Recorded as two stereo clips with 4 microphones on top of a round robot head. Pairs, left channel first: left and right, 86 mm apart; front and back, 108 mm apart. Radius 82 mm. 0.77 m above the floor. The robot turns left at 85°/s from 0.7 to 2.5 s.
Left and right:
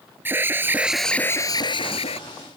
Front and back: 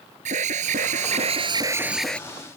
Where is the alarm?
155° right; by 2.2 s 75° left.